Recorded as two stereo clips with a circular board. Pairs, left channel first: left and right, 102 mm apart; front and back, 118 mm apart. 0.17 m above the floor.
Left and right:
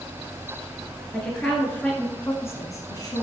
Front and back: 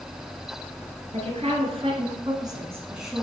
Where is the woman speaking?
175° left, 2.5 m; by 3.2 s 85° left, 1.4 m.